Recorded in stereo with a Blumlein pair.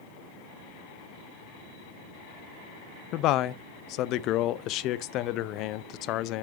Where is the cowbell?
I don't hear a cowbell.